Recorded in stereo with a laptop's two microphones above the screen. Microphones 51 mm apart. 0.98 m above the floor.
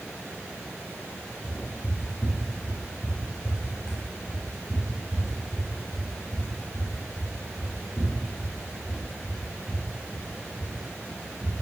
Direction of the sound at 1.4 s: 40° left (ahead or behind).